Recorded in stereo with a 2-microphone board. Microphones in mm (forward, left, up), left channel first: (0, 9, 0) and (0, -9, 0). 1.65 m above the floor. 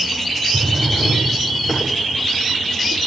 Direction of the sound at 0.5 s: 55° left (ahead or behind).